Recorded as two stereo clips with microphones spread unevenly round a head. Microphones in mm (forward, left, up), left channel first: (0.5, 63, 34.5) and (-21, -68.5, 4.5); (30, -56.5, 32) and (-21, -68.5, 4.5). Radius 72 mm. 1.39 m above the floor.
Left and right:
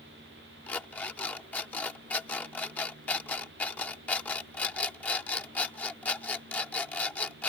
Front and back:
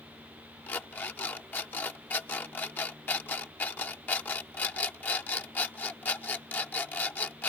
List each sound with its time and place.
0.7 s an alarm clock: 10° left